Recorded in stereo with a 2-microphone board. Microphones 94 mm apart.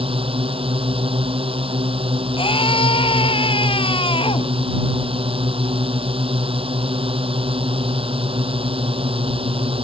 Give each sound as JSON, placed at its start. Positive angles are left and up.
{"t": 0.0, "sound": "a drone", "side_deg": -80}
{"t": 2.4, "sound": "a scream", "side_deg": 70}